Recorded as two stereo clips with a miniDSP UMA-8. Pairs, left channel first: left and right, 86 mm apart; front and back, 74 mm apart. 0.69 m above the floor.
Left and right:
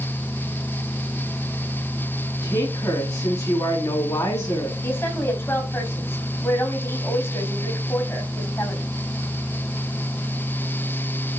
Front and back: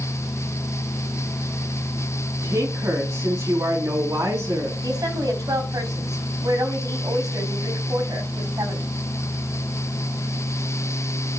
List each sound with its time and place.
2.4 s a woman speaking: 130° left, 5 m
4.8 s a woman speaking: 150° left, 4 m